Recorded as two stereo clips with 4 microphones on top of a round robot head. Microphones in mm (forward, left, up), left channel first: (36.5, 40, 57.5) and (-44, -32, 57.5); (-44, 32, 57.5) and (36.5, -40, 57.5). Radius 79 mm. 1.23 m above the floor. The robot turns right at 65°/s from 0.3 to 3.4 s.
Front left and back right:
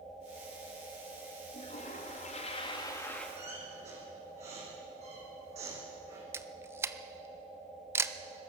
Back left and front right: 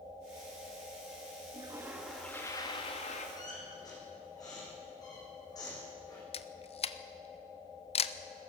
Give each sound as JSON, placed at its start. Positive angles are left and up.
{"t": 1.5, "sound": "a toilet flushing", "azimuth_deg": 10, "distance_m": 2.5}
{"t": 3.4, "sound": "a squeak", "azimuth_deg": -170, "distance_m": 7.5}
{"t": 6.3, "sound": "a camera shutter", "azimuth_deg": 155, "distance_m": 0.9}